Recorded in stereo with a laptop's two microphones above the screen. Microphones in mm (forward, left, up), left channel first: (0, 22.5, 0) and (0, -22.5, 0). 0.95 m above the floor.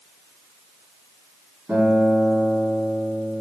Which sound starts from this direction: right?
A guitar, at 1.7 s.